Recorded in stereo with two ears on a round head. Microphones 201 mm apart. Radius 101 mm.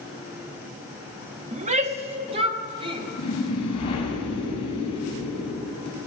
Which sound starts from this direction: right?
A shout, at 1.5 s.